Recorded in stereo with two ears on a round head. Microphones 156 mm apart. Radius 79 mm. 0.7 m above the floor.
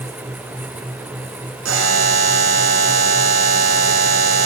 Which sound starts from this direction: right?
A buzzer, at 1.6 s.